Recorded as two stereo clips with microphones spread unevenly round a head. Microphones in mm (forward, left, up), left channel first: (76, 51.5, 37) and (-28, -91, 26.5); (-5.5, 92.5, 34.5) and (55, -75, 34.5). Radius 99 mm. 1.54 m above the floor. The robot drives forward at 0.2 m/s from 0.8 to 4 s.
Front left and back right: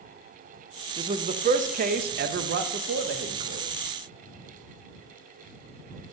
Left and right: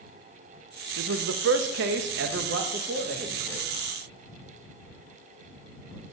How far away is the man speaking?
About 0.5 m.